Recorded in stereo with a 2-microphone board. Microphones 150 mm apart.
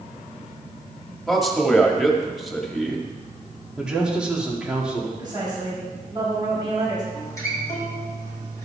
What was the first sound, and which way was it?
A man speaking, centre (ahead or behind).